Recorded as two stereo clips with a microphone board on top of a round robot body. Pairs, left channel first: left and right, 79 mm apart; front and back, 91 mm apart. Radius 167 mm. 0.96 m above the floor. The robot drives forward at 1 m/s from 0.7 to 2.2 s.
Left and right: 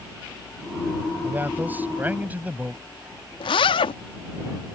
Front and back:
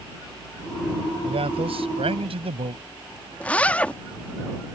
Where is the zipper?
75° left.